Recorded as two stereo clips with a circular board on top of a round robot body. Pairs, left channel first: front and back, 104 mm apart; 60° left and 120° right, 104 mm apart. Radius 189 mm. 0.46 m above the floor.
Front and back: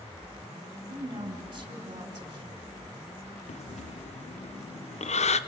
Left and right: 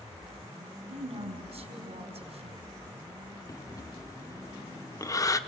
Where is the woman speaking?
135° right, 4 m.